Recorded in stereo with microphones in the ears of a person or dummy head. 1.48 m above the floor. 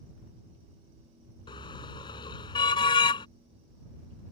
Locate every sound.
1.5 s a car horn: 25° left (ahead or behind)